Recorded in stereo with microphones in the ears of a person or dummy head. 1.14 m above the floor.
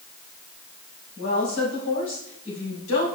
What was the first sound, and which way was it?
A woman speaking, 85° left.